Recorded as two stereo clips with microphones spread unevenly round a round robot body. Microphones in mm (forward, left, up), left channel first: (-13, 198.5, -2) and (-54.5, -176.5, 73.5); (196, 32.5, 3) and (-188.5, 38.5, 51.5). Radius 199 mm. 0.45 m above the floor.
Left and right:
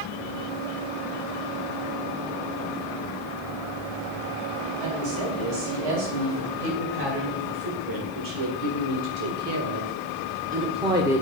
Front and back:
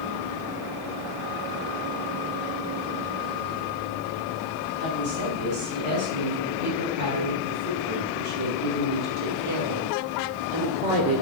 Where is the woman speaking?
120° right, 4 m; by 11.2 s 165° left, 1.5 m.